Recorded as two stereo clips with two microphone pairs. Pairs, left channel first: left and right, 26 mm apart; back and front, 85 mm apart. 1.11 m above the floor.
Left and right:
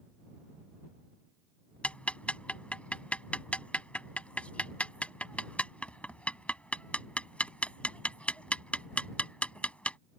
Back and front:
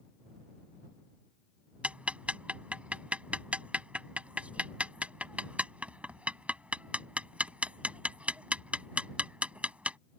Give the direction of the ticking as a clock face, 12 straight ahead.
10 o'clock.